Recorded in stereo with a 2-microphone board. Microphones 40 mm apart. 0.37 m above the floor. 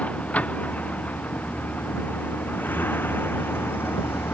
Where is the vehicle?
35° left (ahead or behind); by 4.3 s 75° left (ahead or behind).